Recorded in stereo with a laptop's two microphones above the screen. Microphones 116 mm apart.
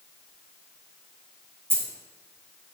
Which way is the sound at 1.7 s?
20° right (ahead or behind).